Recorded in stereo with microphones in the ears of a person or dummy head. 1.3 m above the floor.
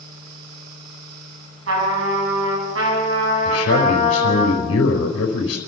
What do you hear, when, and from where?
0.0 s a fan: 50° right (ahead or behind), 6 m
1.7 s a trumpet: 85° right, 7.5 m
3.5 s a man speaking: 85° left, 4 m